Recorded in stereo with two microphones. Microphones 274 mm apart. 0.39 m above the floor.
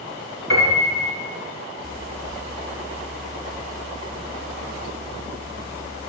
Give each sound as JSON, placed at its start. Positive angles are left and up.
{"t": 0.5, "sound": "a piano", "side_deg": -80, "distance_m": 3.0}